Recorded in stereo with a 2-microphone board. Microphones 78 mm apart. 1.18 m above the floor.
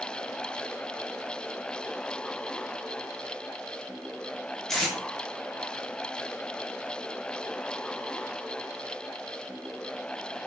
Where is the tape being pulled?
5° left (ahead or behind), 0.8 m.